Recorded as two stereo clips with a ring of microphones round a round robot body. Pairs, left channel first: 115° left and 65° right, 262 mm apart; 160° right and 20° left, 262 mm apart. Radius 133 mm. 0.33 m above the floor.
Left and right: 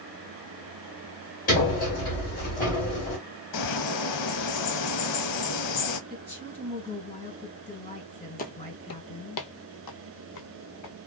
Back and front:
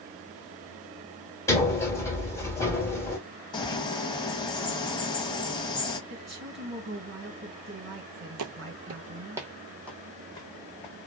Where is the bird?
130° left, 0.6 m.